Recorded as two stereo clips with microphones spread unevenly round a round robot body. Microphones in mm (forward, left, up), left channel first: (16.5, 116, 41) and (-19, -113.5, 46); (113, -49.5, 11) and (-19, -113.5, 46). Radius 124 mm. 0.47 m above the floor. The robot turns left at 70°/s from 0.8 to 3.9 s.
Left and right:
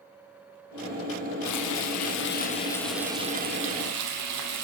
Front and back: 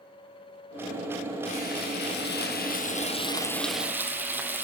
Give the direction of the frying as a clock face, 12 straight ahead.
9 o'clock.